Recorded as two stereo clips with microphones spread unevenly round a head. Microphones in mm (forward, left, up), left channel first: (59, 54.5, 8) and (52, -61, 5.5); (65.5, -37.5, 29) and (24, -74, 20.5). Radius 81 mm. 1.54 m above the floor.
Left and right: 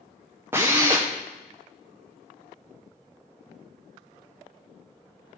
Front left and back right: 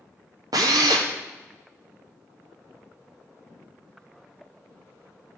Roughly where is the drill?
Behind.